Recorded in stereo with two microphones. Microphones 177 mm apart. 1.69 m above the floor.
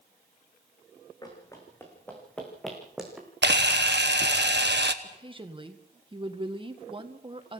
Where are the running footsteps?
20° left (ahead or behind), 5 m; by 3.3 s 5° right (ahead or behind), 5 m.